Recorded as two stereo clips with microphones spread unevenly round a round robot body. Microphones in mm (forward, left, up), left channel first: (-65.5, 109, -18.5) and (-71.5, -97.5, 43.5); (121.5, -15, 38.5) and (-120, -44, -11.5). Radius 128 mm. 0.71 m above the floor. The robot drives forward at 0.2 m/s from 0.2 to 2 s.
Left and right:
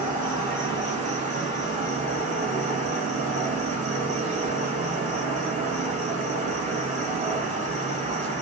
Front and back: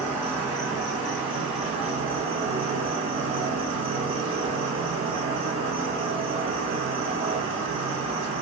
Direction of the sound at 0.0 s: 135° right.